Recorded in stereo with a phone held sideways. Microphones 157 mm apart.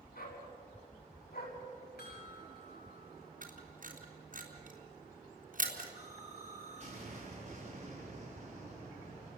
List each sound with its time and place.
0.1 s a dog barking: 70° left (ahead or behind), 6 m; by 1.6 s 80° left, 5.5 m
2.0 s a chime: 85° left, 9 m
3.4 s a camera shutter: 60° right (ahead or behind), 3.5 m
6.0 s an explosion: 45° right (ahead or behind), 7.5 m